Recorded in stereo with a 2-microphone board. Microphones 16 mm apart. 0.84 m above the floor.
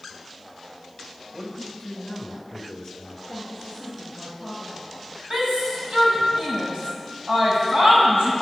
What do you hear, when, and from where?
1.3 s a man speaking: 20° left (ahead or behind), 4 m; by 3.2 s 35° left (ahead or behind), 3.5 m
3.3 s a woman speaking: 35° left (ahead or behind), 3.5 m
5.3 s a shout: 50° right (ahead or behind), 7 m